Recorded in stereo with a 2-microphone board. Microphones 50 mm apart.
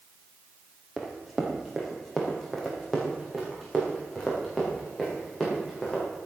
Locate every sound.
1.0 s running footsteps: 5° right (ahead or behind), 2.5 m; by 6.0 s 10° left (ahead or behind), 6.5 m